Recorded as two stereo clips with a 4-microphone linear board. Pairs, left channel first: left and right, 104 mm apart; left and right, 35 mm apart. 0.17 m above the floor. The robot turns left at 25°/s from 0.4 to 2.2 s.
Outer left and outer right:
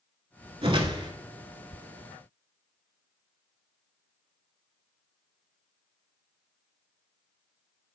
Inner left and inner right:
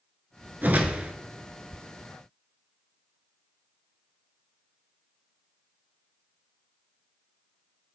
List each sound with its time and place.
0.6 s a whoosh: 55° right (ahead or behind), 0.6 m; by 1.1 s 45° right (ahead or behind), 0.6 m